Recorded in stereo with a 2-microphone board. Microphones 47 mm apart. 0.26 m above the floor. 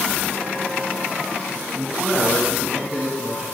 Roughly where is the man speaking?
Right.